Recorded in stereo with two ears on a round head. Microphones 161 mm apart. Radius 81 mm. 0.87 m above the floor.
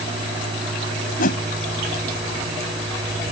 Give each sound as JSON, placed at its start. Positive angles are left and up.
{"t": 1.2, "sound": "a whoosh", "side_deg": 50}